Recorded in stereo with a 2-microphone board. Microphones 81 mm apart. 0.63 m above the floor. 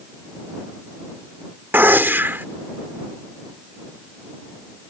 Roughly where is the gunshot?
Right.